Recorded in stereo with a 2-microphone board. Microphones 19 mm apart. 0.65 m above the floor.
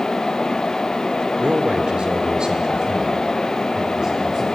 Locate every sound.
1.4 s a man speaking: 65° right (ahead or behind), 1.6 m; by 4.4 s 30° right (ahead or behind), 3.5 m